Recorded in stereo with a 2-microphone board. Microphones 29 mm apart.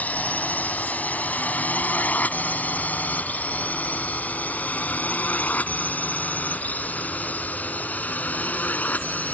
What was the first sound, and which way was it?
A drone, 70° left (ahead or behind).